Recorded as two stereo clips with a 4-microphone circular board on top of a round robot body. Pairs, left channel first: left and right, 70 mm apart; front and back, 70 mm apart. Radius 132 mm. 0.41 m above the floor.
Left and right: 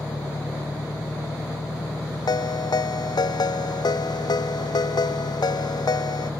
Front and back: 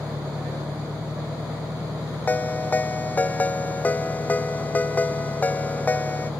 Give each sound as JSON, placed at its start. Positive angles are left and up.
{"t": 0.0, "sound": "an engine running", "azimuth_deg": 120}
{"t": 2.3, "sound": "a ringtone", "azimuth_deg": 70}